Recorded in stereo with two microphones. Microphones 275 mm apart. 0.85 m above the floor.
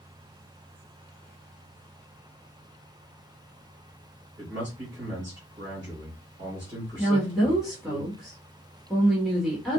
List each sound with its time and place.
4.4 s a man speaking: 40° right (ahead or behind), 2.5 m
7.0 s a woman speaking: centre (ahead or behind), 1.4 m